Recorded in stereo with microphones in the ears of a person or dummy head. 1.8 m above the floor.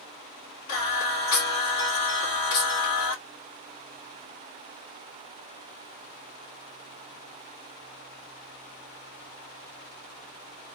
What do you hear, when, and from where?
0.7 s singing: 60° left (ahead or behind), 2.5 m